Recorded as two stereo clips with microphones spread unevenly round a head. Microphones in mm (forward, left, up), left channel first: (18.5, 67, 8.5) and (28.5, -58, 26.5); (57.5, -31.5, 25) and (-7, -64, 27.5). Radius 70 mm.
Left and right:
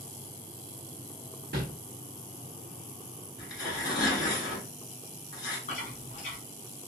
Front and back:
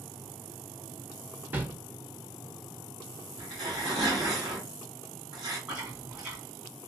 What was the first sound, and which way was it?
A whoosh, 90° right.